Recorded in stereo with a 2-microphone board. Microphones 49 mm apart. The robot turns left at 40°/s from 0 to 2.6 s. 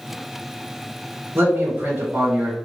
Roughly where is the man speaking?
Ahead right.